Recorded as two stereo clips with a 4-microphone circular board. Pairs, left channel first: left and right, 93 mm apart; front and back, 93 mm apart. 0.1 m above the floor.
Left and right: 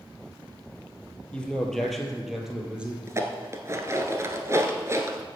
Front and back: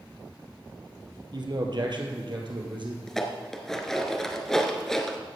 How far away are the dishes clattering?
About 1.1 m.